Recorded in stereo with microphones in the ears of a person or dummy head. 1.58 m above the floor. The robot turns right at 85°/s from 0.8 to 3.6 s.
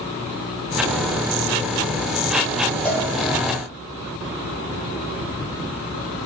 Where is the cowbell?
10° left (ahead or behind), 0.9 m; by 3.1 s 5° right (ahead or behind), 0.9 m.